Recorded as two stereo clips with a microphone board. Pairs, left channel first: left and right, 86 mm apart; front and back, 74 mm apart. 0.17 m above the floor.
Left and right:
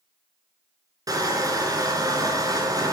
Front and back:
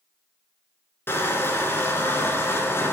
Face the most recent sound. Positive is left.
turn(degrees=-55)